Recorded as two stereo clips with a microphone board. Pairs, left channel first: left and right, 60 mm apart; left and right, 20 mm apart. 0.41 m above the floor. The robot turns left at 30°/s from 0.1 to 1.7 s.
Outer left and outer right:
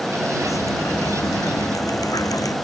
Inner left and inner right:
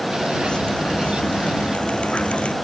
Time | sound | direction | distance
0.4 | dripping | 120° left | ?